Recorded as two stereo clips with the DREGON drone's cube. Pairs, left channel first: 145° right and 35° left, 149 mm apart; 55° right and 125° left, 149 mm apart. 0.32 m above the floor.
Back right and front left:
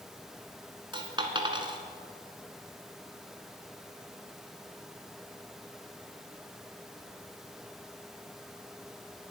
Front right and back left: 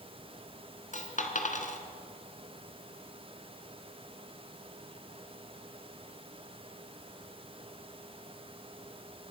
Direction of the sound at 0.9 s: 25° right.